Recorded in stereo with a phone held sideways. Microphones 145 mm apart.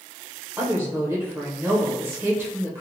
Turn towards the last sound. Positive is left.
turn(degrees=-20)  # may be behind; listen again after turning